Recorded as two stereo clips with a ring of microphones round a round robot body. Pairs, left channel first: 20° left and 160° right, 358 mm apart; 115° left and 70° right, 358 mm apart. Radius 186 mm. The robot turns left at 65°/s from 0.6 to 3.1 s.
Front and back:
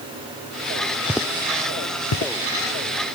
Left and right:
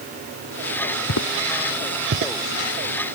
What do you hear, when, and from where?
1.1 s footsteps: 115° left; by 2.3 s 30° right